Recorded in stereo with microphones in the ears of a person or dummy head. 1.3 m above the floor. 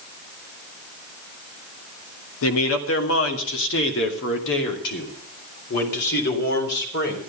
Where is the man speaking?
85° left, 1.6 m; by 7.2 s 65° left (ahead or behind), 4 m.